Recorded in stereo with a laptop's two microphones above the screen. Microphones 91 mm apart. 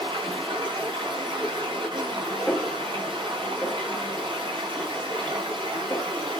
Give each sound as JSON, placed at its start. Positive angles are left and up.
{"t": 0.0, "sound": "running water", "side_deg": -55, "distance_m": 5.0}
{"t": 2.5, "sound": "a snare drum", "side_deg": 10, "distance_m": 1.8}